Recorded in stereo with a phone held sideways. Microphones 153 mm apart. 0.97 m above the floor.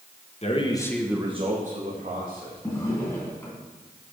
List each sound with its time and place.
0.4 s a man speaking: 45° left (ahead or behind), 1.3 m; by 2.6 s 65° right (ahead or behind), 2.5 m
2.6 s a drawer: 20° left (ahead or behind), 2.5 m